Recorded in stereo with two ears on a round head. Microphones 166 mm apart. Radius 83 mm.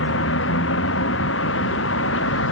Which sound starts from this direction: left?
A vehicle, at 0.0 s.